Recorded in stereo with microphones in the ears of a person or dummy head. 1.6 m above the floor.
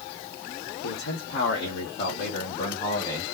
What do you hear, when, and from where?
0.8 s a man speaking: 80° left, 1.3 m; by 3.2 s 20° left (ahead or behind), 1.2 m